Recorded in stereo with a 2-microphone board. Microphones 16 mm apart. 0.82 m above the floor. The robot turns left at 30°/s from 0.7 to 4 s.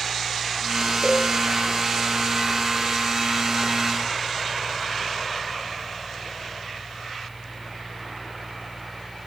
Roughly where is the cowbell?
Right.